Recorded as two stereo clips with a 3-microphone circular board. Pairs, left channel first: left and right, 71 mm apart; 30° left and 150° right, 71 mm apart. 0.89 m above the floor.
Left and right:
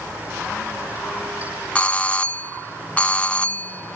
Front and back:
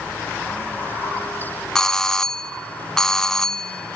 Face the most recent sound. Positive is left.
turn(degrees=95)